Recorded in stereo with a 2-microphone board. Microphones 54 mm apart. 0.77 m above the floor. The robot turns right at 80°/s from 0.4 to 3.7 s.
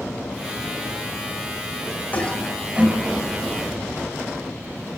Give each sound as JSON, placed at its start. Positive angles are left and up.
{"t": 2.1, "sound": "a toilet flushing", "side_deg": 30, "distance_m": 4.5}